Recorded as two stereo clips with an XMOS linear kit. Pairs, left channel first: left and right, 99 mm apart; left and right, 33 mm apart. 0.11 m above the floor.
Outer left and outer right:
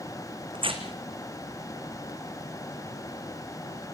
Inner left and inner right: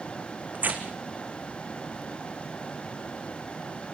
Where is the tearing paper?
65° right (ahead or behind), 2.5 m.